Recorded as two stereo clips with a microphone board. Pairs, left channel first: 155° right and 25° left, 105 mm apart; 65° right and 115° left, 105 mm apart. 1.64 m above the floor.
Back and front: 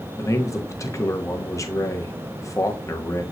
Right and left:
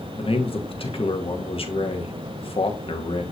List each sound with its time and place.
0.2 s a man speaking: 95° right, 1.6 m